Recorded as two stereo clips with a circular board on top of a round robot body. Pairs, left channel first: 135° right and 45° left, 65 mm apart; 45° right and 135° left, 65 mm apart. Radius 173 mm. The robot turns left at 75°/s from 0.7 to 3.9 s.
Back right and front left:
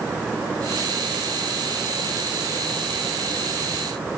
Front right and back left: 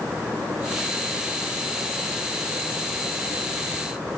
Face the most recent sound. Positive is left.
No sound to turn to.